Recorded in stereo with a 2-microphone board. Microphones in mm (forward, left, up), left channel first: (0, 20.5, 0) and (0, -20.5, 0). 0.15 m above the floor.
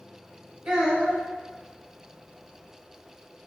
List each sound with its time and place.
0.7 s a child speaking: 15° right (ahead or behind), 1.1 m